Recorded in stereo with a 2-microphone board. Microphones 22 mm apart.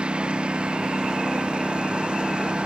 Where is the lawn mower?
60° right (ahead or behind).